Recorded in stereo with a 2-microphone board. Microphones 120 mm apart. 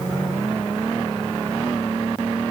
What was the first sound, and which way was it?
Only background noise.